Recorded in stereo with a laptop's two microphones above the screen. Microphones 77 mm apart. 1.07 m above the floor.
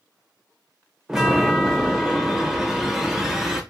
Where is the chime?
5° right (ahead or behind), 0.6 m.